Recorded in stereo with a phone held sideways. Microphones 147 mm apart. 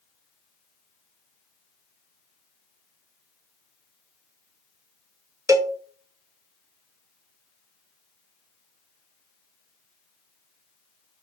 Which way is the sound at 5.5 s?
20° right (ahead or behind).